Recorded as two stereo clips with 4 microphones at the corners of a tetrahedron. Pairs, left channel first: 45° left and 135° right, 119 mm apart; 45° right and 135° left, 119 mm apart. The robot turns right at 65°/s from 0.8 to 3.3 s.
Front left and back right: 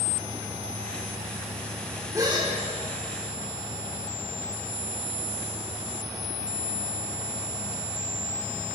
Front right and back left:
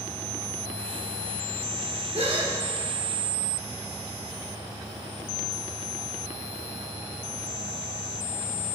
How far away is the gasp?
About 3 m.